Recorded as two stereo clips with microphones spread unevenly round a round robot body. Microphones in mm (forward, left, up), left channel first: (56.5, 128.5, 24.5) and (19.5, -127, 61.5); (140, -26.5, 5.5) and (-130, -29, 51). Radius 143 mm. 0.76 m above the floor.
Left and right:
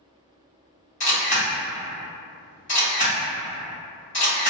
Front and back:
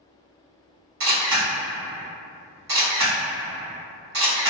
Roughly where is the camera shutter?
Behind left.